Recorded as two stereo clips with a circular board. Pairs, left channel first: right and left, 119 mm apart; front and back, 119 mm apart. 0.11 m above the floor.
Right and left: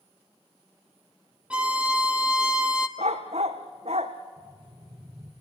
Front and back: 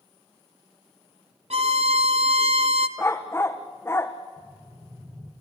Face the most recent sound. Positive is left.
turn(degrees=105)